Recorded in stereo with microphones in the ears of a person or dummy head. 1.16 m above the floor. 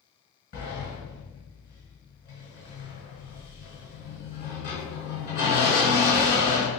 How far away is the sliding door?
About 1.6 m.